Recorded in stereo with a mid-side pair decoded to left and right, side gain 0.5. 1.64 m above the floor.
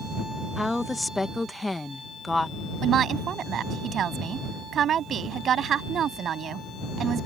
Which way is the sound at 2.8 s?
55° right.